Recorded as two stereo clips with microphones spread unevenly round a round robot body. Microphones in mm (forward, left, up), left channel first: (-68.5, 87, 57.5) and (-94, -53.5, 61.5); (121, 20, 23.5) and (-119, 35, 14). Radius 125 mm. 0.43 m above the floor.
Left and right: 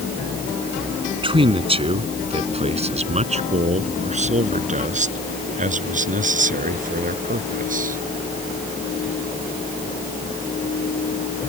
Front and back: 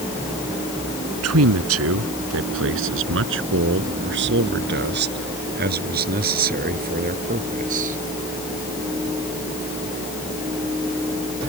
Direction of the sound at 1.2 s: 150° right.